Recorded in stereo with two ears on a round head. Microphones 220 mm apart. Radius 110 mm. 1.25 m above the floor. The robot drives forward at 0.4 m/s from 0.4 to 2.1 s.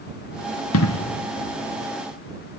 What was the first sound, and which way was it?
An explosion, 65° left (ahead or behind).